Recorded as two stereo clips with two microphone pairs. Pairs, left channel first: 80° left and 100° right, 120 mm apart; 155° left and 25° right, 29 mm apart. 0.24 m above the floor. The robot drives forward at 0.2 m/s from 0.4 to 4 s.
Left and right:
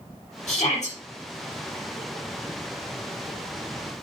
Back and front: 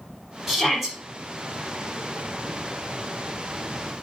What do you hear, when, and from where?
0.5 s a shout: 65° left, 4.5 m